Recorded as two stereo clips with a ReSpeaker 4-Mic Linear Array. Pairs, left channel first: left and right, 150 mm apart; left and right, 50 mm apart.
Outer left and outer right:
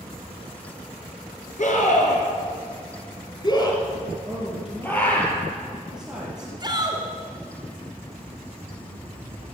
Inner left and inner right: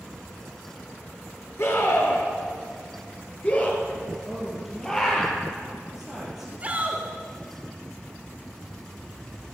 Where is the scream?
60° left (ahead or behind), 3 m; by 5.2 s 10° left (ahead or behind), 5 m.